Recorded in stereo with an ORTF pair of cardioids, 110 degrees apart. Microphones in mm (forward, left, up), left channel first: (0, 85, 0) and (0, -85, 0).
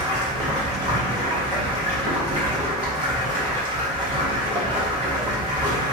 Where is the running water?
30° right, 1.7 m.